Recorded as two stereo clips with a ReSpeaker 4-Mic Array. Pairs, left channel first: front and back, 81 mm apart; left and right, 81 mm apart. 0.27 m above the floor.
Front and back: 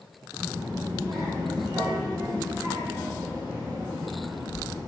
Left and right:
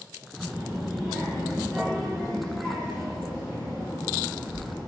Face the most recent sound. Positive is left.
turn(degrees=170)